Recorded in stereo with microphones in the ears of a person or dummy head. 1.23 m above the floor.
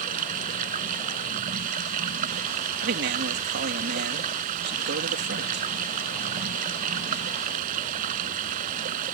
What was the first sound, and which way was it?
Running water, 45° right (ahead or behind).